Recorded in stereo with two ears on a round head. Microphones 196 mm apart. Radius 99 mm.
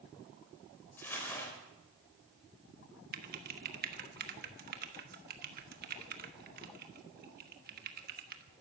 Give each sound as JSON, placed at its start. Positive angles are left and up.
{"t": 1.0, "sound": "crumpling", "side_deg": 10, "distance_m": 4.0}
{"t": 3.1, "sound": "typing on a keyboard", "side_deg": -45, "distance_m": 1.3}